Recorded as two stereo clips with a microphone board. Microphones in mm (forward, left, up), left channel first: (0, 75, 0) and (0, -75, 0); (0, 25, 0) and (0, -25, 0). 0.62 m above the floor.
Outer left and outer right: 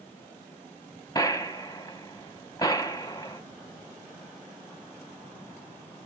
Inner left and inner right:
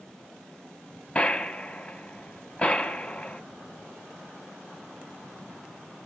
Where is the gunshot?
25° left (ahead or behind), 0.8 m.